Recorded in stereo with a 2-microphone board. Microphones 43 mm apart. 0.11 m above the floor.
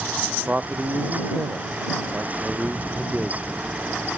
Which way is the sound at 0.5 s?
30° right (ahead or behind).